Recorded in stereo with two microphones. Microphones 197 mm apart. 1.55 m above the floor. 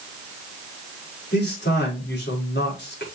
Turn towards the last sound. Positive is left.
turn(degrees=60)  # may be behind; listen again after turning